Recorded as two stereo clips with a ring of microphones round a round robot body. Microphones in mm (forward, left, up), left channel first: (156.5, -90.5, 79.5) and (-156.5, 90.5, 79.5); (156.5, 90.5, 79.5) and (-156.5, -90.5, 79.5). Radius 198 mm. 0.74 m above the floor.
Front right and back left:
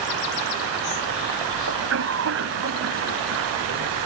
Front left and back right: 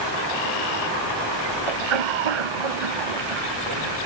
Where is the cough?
155° right.